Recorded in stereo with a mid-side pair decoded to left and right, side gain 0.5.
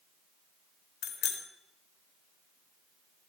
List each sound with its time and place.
1.0 s a bicycle bell: 65° left, 3 m